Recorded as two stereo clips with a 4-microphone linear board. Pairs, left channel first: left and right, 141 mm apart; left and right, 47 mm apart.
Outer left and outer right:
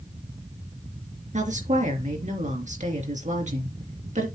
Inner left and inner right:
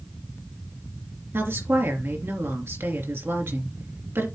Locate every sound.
1.3 s a woman speaking: 60° right (ahead or behind), 3 m